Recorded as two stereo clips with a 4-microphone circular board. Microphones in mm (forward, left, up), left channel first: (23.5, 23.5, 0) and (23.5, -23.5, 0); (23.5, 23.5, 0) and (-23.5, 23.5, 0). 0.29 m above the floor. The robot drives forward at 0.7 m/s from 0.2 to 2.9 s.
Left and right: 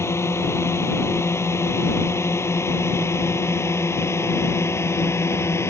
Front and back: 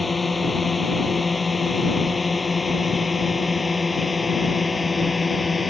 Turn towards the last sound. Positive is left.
turn(degrees=90)